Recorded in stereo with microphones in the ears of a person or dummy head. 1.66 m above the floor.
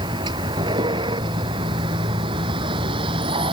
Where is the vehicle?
25° right (ahead or behind); by 3.5 s 30° right (ahead or behind).